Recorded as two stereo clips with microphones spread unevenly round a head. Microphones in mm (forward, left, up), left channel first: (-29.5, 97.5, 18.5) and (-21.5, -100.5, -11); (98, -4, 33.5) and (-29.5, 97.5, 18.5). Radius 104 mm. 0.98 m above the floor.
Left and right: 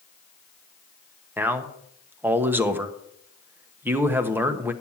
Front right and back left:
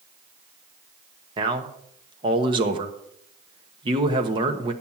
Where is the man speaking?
160° right, 1.1 m.